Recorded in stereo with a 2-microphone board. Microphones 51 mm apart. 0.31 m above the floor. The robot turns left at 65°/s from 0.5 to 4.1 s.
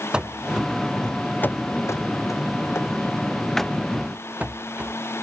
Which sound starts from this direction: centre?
Running footsteps, at 0.1 s.